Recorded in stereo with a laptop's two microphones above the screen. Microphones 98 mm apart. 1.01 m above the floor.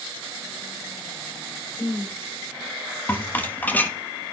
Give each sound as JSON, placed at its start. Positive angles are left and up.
{"t": 1.8, "sound": "a woman speaking", "side_deg": 5, "distance_m": 3.5}
{"t": 3.1, "sound": "a rattle", "side_deg": 20, "distance_m": 1.5}